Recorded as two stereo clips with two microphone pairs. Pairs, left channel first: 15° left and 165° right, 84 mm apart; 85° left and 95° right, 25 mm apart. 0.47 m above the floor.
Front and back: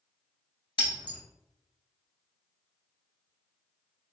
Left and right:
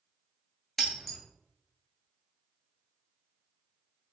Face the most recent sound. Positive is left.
turn(degrees=0)